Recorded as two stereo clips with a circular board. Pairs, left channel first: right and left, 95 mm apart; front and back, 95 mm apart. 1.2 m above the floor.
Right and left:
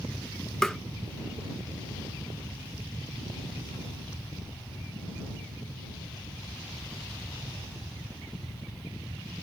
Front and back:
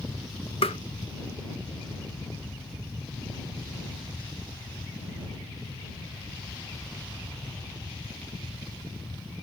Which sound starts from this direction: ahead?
Tapping, at 0.6 s.